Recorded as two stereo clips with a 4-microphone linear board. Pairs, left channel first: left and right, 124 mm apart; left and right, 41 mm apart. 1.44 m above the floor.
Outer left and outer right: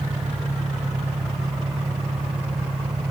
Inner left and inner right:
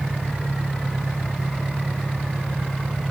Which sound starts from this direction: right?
An engine running, at 0.0 s.